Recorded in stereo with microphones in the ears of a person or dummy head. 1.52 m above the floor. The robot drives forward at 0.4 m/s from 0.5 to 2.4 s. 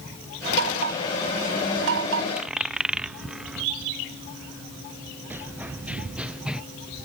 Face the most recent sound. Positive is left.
turn(degrees=-5)  # may be behind; listen again after turning